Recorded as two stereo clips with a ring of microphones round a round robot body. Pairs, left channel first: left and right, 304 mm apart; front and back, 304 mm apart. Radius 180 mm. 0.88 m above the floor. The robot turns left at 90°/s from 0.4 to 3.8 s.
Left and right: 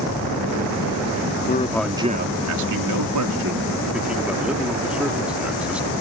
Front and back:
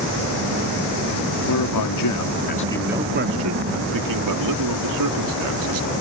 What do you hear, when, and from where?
1.5 s a man speaking: 35° left; by 5.9 s 175° right